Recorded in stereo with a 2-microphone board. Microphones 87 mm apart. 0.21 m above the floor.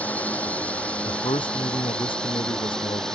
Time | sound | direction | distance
0.0 | a drone | 15° left (ahead or behind) | ?
1.1 | a man speaking | 80° left | ?